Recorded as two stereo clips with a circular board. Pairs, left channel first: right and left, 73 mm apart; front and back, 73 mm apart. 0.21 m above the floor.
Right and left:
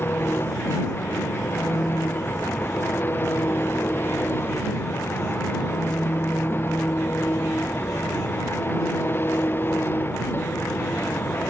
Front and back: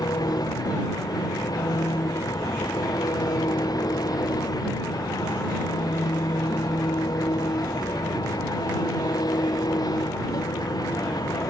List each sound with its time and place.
0.0 s an engine running: 30° right